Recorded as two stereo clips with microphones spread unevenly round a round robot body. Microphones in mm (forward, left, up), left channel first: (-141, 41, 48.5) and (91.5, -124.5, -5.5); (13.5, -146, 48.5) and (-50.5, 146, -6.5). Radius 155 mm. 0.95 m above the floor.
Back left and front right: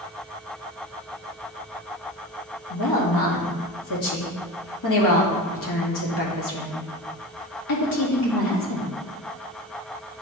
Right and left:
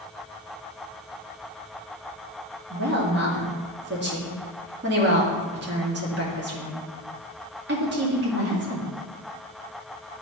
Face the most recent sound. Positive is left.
turn(degrees=150)